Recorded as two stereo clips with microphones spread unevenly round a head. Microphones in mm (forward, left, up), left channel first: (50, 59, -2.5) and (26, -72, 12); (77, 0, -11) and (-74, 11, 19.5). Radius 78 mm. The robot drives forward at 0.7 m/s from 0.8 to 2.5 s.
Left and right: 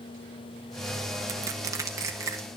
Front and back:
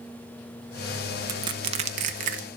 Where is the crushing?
145° right, 0.7 m; by 2.5 s 170° right, 1.3 m.